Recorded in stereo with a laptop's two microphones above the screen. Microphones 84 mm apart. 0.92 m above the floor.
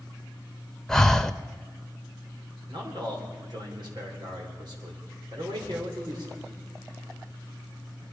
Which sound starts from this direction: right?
A man speaking, at 2.7 s.